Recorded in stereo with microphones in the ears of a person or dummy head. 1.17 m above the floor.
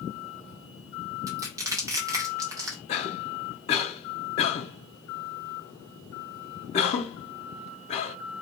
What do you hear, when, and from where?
1.3 s crushing: 15° right (ahead or behind), 0.5 m
2.9 s a cough: 35° left (ahead or behind), 0.6 m